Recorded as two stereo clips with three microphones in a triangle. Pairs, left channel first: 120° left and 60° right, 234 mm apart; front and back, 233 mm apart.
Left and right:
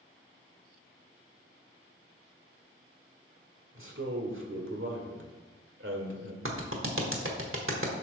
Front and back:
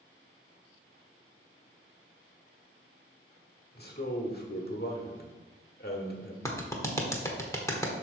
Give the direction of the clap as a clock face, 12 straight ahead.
3 o'clock.